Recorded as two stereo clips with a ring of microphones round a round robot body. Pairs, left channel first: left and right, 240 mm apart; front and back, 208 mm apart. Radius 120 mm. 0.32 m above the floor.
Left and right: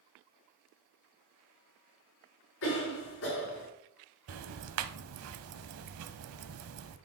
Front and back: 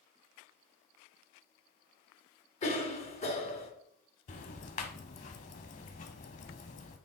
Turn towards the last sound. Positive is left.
turn(degrees=-60)